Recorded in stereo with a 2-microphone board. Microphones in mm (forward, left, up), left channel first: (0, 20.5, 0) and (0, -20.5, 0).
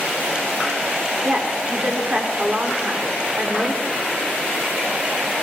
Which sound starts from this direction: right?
A woman speaking, at 1.2 s.